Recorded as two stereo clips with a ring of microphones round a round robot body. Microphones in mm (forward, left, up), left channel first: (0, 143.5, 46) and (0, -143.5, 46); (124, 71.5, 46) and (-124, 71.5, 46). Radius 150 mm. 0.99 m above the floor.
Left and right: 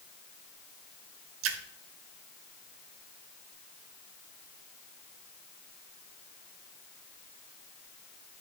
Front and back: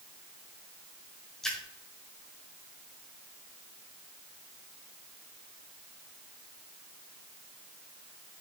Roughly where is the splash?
Right.